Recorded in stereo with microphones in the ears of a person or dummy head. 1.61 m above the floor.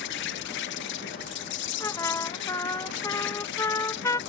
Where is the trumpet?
15° left (ahead or behind).